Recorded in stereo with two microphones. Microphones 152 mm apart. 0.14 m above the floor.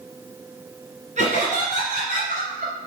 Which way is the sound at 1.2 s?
50° right (ahead or behind).